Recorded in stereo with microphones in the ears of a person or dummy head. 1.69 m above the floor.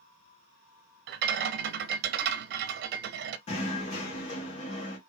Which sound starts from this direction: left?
Knocking, at 3.5 s.